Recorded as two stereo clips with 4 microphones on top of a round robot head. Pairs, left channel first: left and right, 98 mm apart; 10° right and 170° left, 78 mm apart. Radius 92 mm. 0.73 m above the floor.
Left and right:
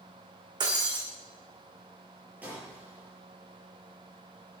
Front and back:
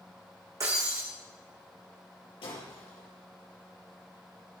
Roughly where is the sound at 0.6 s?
Behind right.